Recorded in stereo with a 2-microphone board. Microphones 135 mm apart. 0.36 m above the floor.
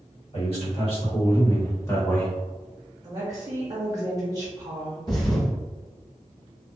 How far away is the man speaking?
About 1.7 m.